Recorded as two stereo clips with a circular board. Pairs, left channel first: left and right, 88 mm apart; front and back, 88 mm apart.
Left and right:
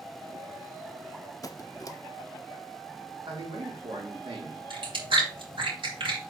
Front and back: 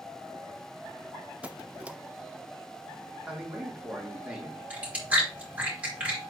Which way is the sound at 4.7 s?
105° right.